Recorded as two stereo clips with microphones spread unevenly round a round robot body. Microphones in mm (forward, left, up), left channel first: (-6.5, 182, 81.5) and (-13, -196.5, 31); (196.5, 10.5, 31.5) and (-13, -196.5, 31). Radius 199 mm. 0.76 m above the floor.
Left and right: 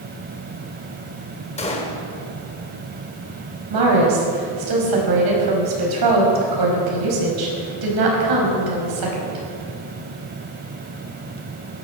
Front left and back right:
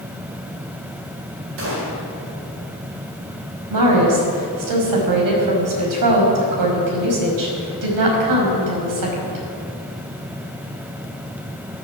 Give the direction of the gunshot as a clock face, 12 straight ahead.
6 o'clock.